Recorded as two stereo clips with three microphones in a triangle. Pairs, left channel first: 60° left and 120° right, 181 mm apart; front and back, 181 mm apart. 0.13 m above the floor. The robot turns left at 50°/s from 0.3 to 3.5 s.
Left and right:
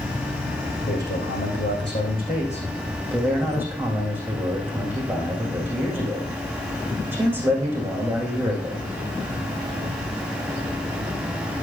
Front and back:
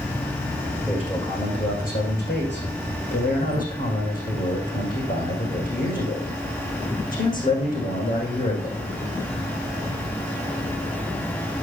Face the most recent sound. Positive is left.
turn(degrees=-40)